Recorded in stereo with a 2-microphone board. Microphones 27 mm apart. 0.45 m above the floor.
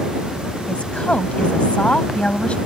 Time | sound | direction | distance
0.7 | a woman speaking | 45° left (ahead or behind) | ?